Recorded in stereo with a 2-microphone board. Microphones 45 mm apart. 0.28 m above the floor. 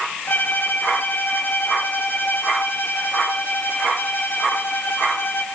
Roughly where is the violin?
Left.